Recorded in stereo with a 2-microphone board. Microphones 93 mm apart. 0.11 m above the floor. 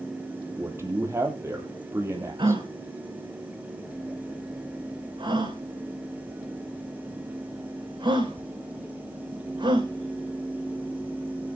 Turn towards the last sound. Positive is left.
turn(degrees=-55)  # may be behind; listen again after turning